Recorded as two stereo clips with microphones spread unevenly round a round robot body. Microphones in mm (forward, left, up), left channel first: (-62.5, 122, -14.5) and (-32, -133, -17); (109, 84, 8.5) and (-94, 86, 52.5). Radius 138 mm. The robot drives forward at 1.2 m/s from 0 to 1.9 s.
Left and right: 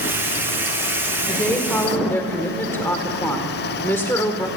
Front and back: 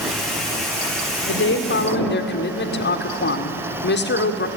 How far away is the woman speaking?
About 2.5 m.